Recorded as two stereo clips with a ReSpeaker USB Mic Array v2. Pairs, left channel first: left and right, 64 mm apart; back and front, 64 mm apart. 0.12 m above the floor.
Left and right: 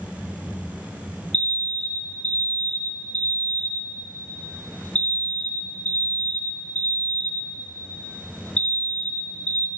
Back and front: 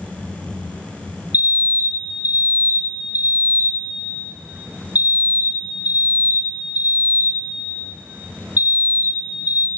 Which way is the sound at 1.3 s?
35° left.